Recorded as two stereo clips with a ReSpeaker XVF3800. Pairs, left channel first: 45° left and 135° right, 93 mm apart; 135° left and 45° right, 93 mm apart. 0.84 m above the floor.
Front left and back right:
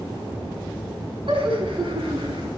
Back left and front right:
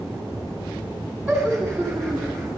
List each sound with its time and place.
1.3 s laughter: 135° right, 5.5 m; by 2.5 s 145° right, 6.5 m